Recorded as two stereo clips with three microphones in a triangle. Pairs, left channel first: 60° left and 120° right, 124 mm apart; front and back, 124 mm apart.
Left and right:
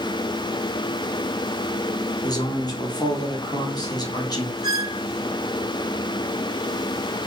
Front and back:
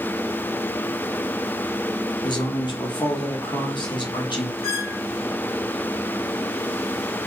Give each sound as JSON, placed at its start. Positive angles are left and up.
{"t": 2.2, "sound": "a man speaking", "azimuth_deg": 25, "distance_m": 0.9}
{"t": 4.6, "sound": "a squeak", "azimuth_deg": -145, "distance_m": 1.1}